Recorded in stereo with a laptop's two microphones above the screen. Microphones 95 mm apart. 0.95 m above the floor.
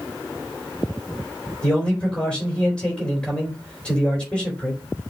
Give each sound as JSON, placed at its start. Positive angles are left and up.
{"t": 1.6, "sound": "a man speaking", "side_deg": 10, "distance_m": 3.5}